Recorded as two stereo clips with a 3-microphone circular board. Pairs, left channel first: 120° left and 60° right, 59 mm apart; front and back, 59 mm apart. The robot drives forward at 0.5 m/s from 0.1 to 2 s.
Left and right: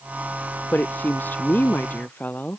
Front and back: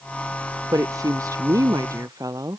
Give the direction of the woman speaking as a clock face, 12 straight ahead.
6 o'clock.